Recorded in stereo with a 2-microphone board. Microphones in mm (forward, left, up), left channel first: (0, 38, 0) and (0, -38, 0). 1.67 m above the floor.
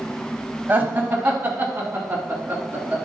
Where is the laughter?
25° right (ahead or behind), 1.7 m.